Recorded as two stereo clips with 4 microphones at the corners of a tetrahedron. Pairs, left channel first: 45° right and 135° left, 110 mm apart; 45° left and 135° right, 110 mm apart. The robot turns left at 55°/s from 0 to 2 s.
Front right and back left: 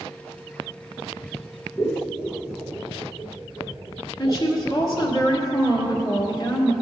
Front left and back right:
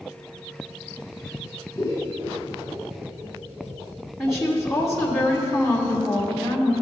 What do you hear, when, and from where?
1.8 s scissors: 75° right, 1.4 m; by 5.1 s 85° right, 1.4 m
4.2 s a woman speaking: 45° right, 1.6 m